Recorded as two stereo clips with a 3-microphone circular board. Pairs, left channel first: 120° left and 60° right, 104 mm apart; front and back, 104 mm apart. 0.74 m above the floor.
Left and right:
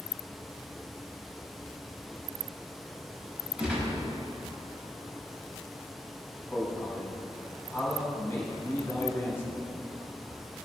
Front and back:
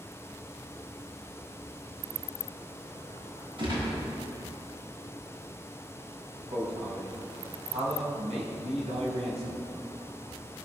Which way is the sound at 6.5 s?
170° right.